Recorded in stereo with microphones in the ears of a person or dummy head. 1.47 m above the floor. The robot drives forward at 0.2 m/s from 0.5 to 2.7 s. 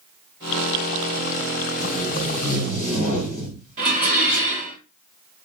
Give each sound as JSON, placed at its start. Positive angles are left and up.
{"t": 1.8, "sound": "tape being pulled", "side_deg": 45, "distance_m": 0.6}
{"t": 3.8, "sound": "dishes clattering", "side_deg": -50, "distance_m": 1.1}